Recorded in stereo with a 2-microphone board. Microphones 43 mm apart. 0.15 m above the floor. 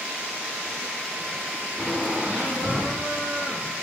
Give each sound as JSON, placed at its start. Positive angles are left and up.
{"t": 1.8, "sound": "laughter", "side_deg": -30, "distance_m": 5.0}